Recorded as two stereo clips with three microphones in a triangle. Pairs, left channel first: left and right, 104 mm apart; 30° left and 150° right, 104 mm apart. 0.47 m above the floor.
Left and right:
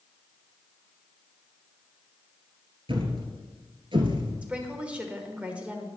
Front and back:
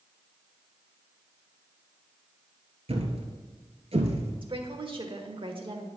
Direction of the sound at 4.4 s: 165° right.